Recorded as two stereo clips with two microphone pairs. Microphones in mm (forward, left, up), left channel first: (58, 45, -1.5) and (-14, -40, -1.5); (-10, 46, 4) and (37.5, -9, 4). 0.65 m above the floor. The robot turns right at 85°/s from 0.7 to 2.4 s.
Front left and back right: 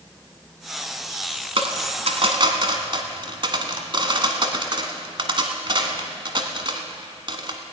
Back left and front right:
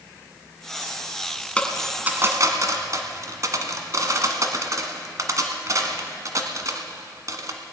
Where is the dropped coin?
160° right, 1.3 m; by 7.6 s 85° right, 1.3 m.